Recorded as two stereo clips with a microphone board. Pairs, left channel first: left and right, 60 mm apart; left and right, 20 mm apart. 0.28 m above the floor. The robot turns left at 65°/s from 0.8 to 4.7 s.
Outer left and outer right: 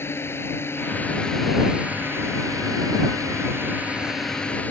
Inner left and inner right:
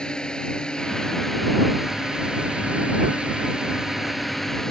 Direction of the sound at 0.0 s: 45° left.